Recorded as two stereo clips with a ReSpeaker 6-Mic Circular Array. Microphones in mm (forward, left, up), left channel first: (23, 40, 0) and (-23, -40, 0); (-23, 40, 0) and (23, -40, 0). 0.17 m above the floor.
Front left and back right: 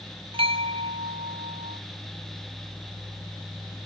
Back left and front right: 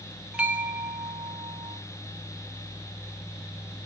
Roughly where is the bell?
Behind right.